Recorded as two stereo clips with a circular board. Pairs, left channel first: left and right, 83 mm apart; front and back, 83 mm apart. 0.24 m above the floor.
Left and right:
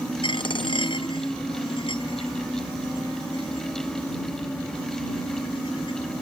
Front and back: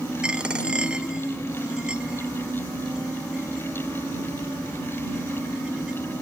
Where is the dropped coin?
100° left.